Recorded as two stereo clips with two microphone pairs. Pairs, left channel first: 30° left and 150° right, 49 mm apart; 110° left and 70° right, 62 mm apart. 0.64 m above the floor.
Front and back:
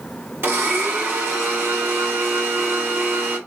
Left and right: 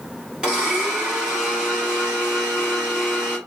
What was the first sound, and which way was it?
A blender, 145° right.